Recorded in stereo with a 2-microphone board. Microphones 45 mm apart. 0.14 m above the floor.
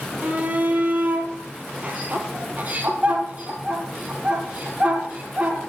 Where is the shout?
35° right (ahead or behind), 3 m.